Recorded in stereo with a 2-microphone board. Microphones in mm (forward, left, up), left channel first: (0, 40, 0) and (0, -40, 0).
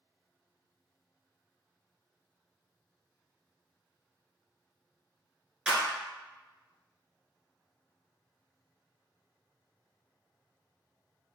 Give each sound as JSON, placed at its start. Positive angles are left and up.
{"t": 5.7, "sound": "a clap", "side_deg": -5, "distance_m": 1.1}